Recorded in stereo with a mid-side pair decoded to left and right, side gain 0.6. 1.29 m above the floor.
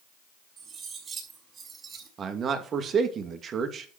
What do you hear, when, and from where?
0.6 s cutlery clinking: 35° right, 6 m
2.2 s a man speaking: 40° right, 2.5 m